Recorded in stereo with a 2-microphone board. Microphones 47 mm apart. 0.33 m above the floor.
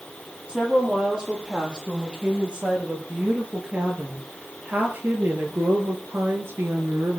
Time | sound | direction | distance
0.5 | a woman speaking | 20° right (ahead or behind) | 9 m